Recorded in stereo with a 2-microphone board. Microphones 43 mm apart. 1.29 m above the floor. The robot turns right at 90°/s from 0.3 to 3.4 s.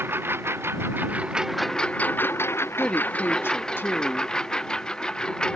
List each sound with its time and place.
0.0 s a lawn mower: 65° right (ahead or behind); by 5.6 s 20° left (ahead or behind)
2.8 s a woman speaking: 15° left; by 4.3 s 70° left